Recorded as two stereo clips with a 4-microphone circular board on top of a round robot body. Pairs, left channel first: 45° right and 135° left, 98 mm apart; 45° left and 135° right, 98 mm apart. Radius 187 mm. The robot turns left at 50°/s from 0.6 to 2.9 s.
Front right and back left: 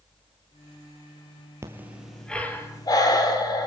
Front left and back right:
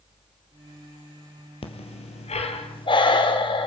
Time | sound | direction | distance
1.6 | breathing | 70° left | 2.5 m